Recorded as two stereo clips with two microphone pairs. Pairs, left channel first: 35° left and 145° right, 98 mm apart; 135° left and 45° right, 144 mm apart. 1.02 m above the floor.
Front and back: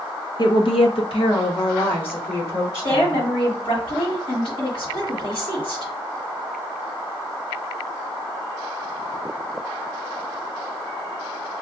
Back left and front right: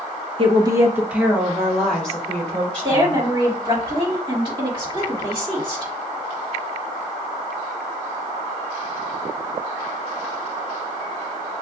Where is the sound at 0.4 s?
Straight ahead, 0.6 m; by 3.2 s 60° left, 2.5 m.